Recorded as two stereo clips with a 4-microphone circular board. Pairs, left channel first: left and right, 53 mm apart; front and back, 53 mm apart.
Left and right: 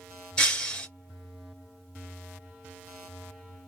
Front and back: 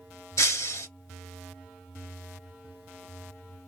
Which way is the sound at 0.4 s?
15° left.